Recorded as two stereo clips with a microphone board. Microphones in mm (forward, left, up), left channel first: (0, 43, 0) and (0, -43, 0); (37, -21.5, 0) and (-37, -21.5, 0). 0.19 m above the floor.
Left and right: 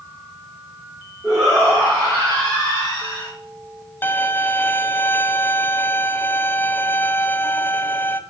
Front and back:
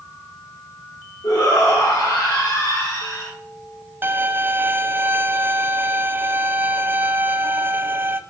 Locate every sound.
1.2 s a shout: 10° left, 5 m; by 3.3 s 30° left, 3.5 m
4.0 s a violin: 140° left, 0.5 m